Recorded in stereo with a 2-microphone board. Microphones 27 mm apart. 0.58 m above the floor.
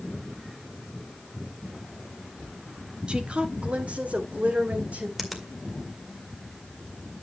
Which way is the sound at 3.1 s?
45° right (ahead or behind).